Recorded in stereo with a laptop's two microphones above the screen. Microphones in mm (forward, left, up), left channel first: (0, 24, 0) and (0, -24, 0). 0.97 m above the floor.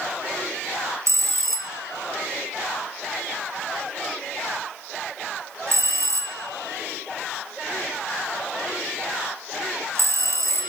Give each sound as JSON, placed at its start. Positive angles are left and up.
{"t": 1.1, "sound": "a bell", "side_deg": -65, "distance_m": 1.6}